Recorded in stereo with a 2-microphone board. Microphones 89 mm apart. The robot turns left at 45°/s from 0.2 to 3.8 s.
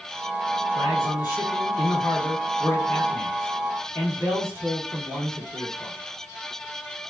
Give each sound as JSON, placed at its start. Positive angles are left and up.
{"t": 0.8, "sound": "a man speaking", "azimuth_deg": 105, "distance_m": 1.6}